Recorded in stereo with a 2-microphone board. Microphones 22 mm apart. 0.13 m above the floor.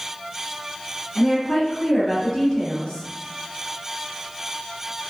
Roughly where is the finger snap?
I don't hear a finger snap.